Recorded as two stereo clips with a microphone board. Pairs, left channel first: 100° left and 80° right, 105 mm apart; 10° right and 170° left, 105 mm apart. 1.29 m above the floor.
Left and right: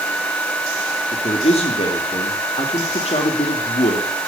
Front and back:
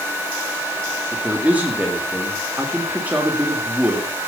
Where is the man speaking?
90° left, 3 m.